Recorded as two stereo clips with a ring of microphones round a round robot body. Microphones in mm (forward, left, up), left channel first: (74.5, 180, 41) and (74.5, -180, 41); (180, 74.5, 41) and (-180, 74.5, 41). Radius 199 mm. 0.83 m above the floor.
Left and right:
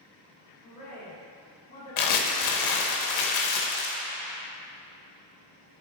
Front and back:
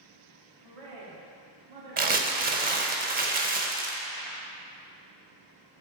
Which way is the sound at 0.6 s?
160° left.